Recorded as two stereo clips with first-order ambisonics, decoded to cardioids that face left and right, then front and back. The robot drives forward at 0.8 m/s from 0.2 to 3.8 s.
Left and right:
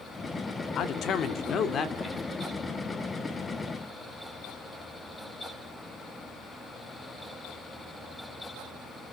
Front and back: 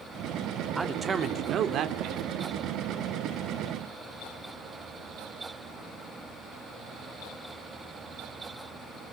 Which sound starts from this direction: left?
A man speaking, at 0.8 s.